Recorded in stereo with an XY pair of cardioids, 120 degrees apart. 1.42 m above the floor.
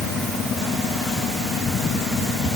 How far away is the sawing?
No sawing in this recording.